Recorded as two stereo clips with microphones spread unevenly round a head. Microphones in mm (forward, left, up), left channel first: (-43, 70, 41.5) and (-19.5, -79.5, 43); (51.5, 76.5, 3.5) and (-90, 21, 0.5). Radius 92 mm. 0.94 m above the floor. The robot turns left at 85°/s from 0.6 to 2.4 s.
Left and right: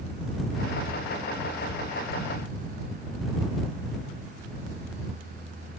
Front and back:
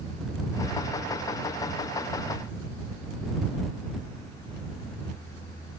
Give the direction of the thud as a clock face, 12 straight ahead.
I don't hear a thud.